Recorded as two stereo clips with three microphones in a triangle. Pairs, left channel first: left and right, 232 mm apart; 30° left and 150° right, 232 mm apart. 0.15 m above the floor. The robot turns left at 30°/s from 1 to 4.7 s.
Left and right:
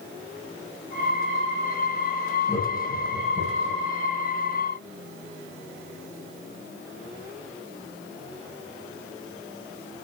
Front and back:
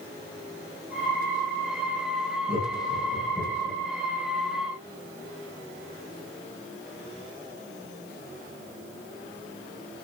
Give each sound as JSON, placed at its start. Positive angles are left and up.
{"t": 2.5, "sound": "laughter", "azimuth_deg": 165, "distance_m": 6.5}